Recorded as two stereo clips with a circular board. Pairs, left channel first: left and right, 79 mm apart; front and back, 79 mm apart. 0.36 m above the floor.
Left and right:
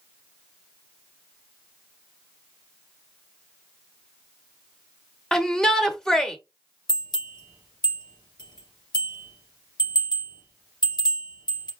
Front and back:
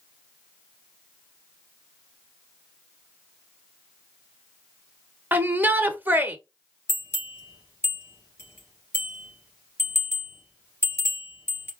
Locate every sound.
5.3 s a shout: 165° left, 0.9 m
6.9 s a bell: 60° left, 2.5 m